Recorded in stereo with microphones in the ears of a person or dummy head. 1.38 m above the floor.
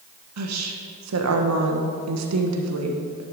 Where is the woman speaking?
80° right, 1.3 m.